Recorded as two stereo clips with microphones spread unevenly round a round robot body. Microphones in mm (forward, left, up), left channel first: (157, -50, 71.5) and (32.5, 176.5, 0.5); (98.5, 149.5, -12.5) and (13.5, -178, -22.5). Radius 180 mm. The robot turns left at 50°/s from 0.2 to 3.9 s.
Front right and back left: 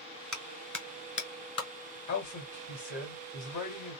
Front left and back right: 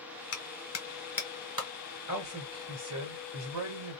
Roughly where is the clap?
Ahead left.